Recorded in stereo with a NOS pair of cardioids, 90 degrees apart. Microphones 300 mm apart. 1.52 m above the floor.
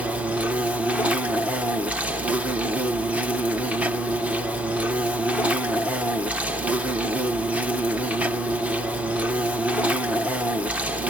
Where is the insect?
5° right, 1.1 m.